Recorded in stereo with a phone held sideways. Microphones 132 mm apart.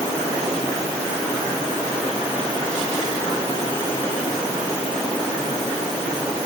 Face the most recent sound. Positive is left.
No sound to turn to.